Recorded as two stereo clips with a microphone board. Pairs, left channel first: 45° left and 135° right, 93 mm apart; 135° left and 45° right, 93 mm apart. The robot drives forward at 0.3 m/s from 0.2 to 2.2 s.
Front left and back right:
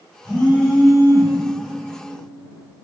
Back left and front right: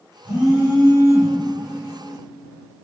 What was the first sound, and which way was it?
A phone buzzing, 105° left.